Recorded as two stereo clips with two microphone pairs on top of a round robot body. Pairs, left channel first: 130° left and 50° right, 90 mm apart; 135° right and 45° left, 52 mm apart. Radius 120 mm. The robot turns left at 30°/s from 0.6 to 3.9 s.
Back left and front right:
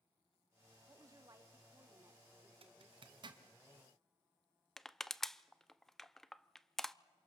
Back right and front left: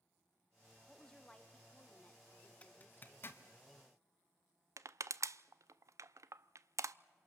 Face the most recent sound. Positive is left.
turn(degrees=40)